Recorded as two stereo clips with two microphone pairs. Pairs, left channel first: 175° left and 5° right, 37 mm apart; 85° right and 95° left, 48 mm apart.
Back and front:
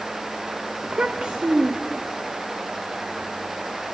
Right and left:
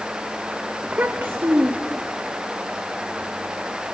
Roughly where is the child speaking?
Ahead left.